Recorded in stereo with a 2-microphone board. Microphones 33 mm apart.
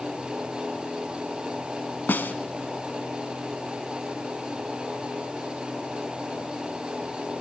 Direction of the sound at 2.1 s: 75° left (ahead or behind).